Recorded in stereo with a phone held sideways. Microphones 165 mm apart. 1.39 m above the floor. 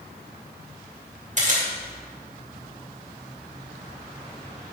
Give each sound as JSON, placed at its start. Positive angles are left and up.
{"t": 1.4, "sound": "a camera shutter", "side_deg": -45, "distance_m": 2.5}